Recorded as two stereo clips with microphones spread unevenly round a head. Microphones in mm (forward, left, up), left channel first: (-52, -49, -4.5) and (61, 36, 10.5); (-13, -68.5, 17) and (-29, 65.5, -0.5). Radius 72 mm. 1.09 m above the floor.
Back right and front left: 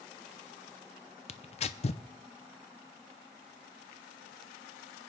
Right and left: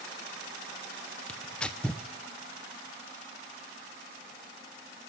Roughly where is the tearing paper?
Behind right.